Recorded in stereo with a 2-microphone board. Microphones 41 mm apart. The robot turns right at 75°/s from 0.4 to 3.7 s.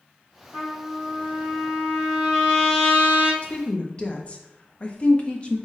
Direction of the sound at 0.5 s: 140° right.